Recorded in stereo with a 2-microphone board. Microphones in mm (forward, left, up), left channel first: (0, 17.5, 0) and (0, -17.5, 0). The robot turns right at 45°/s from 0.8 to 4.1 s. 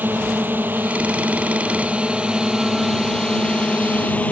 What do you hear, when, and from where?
0.0 s a drone: 65° right (ahead or behind); by 4.3 s 45° left (ahead or behind)